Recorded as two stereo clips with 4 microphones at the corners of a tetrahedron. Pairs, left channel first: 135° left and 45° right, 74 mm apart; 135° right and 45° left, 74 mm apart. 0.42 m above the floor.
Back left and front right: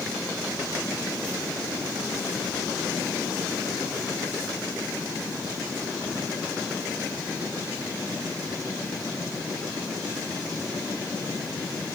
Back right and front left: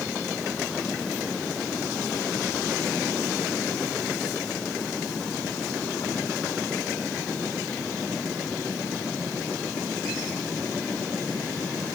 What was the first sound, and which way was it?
Only background noise.